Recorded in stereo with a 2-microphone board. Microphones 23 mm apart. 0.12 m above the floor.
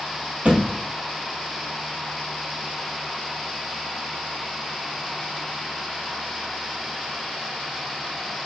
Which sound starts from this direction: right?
A thud, at 0.5 s.